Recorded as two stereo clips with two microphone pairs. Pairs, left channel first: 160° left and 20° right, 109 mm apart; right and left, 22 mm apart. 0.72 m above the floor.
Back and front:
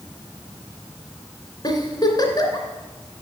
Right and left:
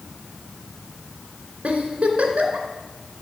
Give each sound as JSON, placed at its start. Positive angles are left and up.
{"t": 1.6, "sound": "a giggle", "azimuth_deg": 110, "distance_m": 2.5}